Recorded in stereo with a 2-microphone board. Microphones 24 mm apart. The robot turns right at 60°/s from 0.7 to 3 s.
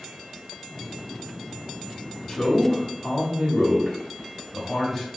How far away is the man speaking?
About 0.8 m.